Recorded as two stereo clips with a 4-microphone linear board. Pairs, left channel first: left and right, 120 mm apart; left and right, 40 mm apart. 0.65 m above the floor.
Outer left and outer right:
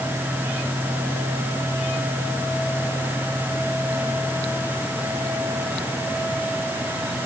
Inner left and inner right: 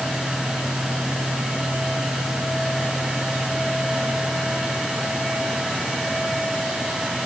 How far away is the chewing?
I don't hear chewing.